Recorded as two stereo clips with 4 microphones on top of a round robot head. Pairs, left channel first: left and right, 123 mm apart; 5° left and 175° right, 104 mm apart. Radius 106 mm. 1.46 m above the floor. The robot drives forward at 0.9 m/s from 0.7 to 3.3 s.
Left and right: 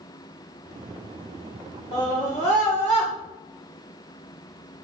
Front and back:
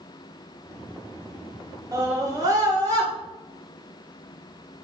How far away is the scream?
About 2.5 m.